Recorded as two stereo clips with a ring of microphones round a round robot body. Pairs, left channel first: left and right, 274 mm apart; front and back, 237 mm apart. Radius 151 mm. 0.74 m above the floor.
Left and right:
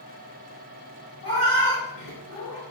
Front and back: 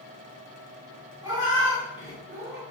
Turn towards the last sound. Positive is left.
turn(degrees=140)